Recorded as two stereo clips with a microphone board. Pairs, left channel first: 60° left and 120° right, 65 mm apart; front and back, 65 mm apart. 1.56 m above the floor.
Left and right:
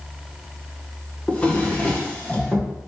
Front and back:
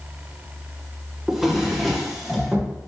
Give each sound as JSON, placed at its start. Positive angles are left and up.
{"t": 1.3, "sound": "a drawer", "azimuth_deg": 95, "distance_m": 0.6}